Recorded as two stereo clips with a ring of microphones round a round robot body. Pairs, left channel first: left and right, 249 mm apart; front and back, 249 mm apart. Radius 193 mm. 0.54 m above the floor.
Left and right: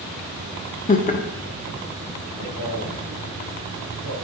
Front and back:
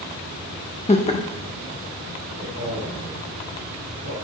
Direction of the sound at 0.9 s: 50° left.